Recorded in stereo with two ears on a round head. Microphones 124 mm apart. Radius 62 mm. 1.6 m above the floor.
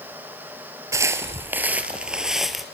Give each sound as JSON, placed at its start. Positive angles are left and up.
{"t": 0.9, "sound": "footsteps", "side_deg": -20, "distance_m": 1.7}